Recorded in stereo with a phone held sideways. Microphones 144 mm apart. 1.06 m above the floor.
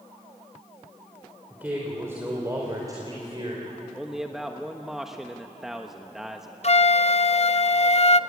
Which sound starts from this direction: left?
A flute, at 6.6 s.